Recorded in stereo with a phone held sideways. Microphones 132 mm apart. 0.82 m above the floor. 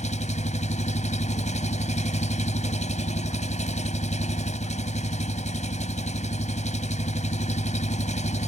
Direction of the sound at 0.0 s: 60° left (ahead or behind).